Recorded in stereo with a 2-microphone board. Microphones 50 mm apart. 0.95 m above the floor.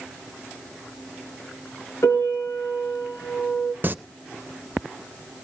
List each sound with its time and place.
2.0 s a piano: 75° left (ahead or behind), 4 m
3.8 s singing: 45° right (ahead or behind), 0.7 m